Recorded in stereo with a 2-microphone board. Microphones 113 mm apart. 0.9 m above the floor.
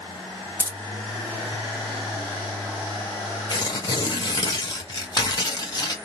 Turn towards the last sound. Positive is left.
turn(degrees=40)  # may be behind; listen again after turning